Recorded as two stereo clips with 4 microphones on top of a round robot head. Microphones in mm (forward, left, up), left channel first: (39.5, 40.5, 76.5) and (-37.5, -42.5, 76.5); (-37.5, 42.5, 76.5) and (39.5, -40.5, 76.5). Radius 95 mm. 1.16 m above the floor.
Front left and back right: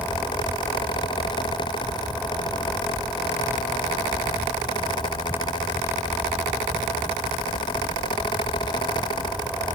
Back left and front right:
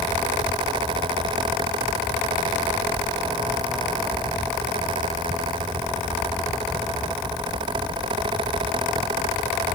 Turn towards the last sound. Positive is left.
No sound to turn to.